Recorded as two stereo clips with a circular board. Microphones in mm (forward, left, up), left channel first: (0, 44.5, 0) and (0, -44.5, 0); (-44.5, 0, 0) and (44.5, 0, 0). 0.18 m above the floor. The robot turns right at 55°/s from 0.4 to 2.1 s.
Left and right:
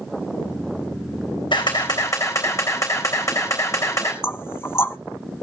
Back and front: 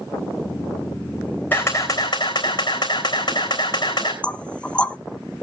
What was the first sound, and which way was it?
A camera shutter, 110° left.